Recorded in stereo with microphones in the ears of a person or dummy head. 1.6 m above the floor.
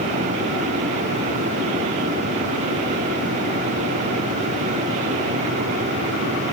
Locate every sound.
Only background noise.